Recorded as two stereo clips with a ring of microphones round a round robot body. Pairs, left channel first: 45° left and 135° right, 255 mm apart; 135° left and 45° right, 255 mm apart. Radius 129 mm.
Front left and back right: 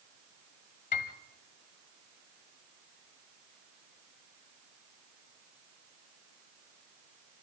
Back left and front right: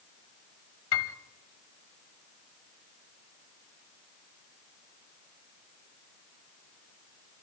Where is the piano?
105° left, 1.4 m.